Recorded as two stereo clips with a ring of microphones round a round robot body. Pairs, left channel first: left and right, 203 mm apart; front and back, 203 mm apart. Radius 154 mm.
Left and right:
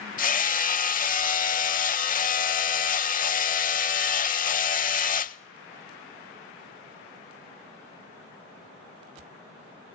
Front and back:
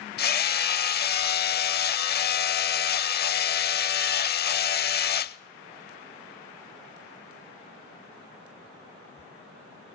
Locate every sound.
0.2 s hammering: 40° left, 0.6 m